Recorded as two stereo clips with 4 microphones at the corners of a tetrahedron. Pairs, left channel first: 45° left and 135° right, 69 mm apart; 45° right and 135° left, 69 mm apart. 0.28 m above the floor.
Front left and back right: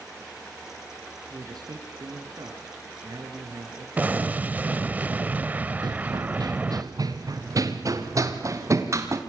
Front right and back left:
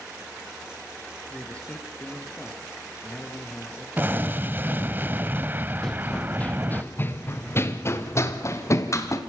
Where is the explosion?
170° left, 0.7 m.